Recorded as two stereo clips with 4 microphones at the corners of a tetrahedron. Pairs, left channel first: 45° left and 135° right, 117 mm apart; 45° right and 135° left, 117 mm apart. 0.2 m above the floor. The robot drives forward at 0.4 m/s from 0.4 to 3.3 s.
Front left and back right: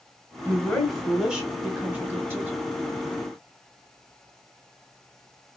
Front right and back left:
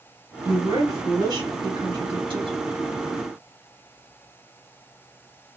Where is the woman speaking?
120° left, 1.0 m; by 2.6 s 160° left, 1.4 m.